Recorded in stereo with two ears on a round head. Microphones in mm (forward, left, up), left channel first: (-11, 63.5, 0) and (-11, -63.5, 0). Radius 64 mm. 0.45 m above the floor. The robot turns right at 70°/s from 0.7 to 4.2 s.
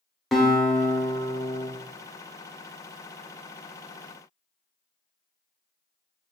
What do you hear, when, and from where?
0.3 s a guitar: straight ahead, 0.8 m; by 1.7 s 70° left, 0.8 m